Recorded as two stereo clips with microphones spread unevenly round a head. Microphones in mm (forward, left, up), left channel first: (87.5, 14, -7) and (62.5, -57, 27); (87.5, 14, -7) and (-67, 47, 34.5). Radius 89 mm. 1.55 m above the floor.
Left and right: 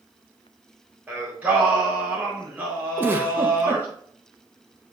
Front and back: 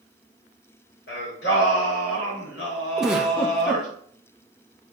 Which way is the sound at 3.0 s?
120° right.